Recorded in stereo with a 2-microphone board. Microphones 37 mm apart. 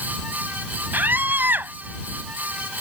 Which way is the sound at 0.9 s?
60° right (ahead or behind).